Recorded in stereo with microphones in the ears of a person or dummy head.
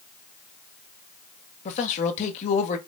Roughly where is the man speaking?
Left.